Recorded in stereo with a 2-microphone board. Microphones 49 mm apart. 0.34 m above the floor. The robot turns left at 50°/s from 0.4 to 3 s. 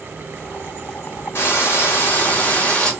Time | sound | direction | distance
1.4 | frying | 100° left | 1.4 m